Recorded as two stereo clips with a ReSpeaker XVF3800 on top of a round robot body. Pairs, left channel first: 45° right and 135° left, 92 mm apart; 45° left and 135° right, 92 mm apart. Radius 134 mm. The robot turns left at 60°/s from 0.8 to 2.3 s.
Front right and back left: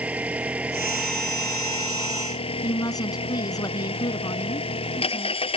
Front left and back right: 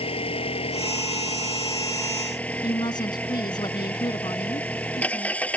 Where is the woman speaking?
5° left.